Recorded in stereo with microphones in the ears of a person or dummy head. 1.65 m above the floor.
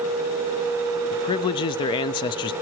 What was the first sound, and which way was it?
A man speaking, 25° left (ahead or behind).